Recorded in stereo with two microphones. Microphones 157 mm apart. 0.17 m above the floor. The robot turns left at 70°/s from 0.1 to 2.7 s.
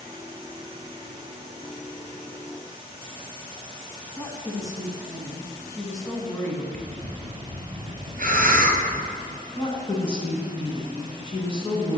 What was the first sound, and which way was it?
A woman speaking, 20° left (ahead or behind).